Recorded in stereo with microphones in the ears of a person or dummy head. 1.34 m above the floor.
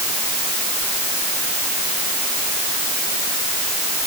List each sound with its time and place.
Only background noise.